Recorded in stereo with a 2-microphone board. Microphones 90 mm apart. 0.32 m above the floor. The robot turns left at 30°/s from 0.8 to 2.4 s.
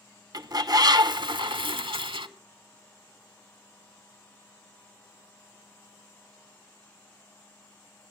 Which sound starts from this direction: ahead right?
A bird, at 0.3 s.